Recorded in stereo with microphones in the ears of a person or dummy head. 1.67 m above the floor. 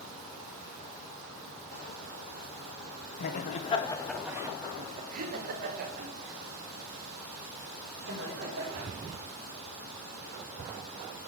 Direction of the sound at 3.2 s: 55° left (ahead or behind).